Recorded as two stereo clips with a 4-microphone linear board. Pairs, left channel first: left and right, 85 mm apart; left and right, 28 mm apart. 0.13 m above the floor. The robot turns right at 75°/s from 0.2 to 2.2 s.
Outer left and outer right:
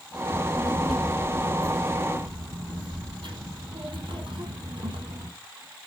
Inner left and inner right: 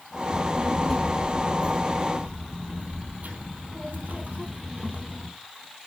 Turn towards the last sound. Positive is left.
turn(degrees=-70)  # may be behind; listen again after turning